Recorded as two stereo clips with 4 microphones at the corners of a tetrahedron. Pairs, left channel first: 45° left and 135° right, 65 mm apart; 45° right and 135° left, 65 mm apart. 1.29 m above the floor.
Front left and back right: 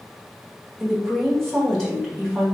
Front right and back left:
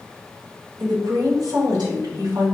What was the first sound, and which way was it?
A woman speaking, 130° left.